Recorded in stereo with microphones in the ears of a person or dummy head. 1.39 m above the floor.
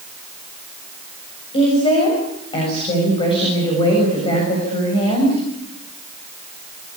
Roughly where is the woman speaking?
Left.